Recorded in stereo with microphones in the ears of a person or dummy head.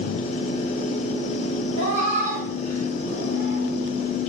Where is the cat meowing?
35° right (ahead or behind), 1.4 m.